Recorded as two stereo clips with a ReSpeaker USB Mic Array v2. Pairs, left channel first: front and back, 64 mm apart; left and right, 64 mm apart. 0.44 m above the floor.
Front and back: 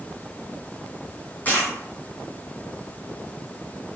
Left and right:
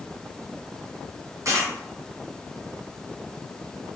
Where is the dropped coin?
60° right, 1.1 m.